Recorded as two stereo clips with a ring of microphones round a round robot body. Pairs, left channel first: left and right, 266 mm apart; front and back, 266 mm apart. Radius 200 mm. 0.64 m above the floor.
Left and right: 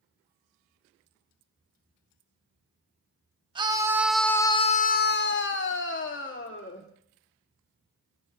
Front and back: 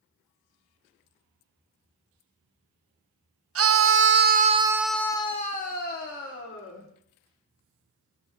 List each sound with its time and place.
3.5 s a scream: 160° right, 1.2 m; by 6.9 s 45° left, 2 m